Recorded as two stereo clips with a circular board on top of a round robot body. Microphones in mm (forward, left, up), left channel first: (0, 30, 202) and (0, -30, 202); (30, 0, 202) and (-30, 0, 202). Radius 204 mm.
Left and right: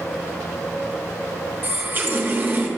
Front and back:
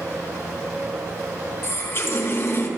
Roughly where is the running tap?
Ahead right.